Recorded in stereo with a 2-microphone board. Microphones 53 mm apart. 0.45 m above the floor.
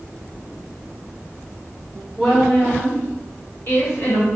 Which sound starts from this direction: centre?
A woman speaking, at 2.2 s.